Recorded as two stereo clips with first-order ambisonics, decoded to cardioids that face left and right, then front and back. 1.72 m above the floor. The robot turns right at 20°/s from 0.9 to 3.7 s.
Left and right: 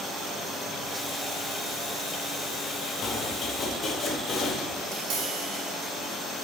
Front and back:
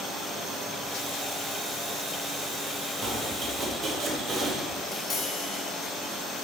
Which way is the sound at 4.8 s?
75° right.